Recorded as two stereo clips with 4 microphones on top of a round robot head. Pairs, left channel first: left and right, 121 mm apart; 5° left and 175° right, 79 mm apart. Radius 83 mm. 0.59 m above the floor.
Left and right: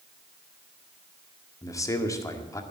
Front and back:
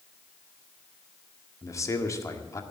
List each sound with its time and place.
1.6 s a man speaking: 35° left, 1.8 m